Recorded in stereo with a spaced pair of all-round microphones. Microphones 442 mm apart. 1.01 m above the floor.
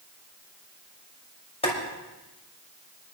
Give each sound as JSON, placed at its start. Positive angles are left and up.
{"t": 1.6, "sound": "boiling", "side_deg": 15, "distance_m": 5.5}